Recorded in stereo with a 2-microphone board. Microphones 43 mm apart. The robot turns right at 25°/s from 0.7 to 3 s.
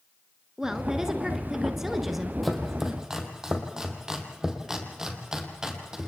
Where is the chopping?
Centre (ahead or behind), 2.5 m; by 6.1 s 15° right (ahead or behind), 2.5 m.